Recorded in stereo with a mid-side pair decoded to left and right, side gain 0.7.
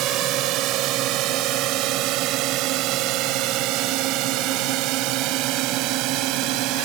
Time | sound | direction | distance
0.0 | a drone | 55° right | ?